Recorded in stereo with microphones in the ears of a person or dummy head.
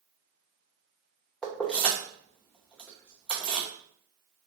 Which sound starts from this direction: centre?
Keys jangling, at 1.4 s.